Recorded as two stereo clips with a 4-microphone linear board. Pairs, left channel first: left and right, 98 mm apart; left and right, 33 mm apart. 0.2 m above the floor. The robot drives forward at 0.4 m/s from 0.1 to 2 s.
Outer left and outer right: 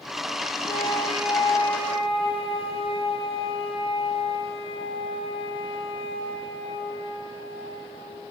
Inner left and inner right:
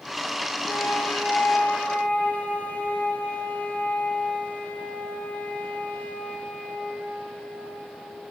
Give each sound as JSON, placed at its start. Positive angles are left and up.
{"t": 0.7, "sound": "a flute", "side_deg": 60, "distance_m": 5.0}